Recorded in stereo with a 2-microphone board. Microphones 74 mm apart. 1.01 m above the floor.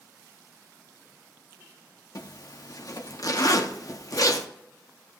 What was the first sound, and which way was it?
A zipper, 55° left (ahead or behind).